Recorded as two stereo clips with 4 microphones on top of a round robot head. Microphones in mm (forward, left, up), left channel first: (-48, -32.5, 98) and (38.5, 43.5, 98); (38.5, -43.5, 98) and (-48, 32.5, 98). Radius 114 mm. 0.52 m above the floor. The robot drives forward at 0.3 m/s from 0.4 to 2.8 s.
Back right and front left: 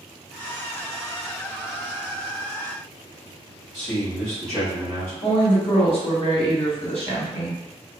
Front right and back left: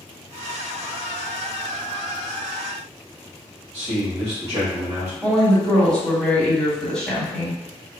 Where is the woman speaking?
125° right, 1.4 m.